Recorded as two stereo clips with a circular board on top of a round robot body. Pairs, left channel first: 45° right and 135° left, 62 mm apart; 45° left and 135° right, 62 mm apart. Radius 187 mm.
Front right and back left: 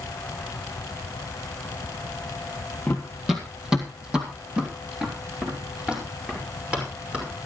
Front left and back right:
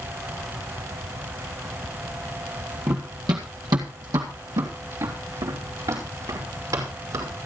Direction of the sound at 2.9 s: 115° right.